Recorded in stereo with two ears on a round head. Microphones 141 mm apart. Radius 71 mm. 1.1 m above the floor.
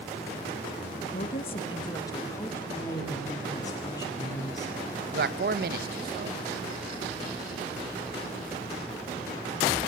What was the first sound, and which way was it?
A woman speaking, 55° left (ahead or behind).